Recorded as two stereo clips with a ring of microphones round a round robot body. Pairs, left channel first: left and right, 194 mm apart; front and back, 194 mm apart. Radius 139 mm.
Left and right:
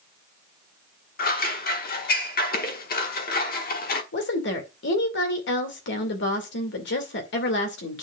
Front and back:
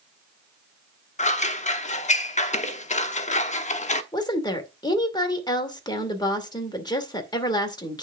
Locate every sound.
1.2 s scissors: 50° left, 1.0 m
4.1 s a woman speaking: 65° left, 2 m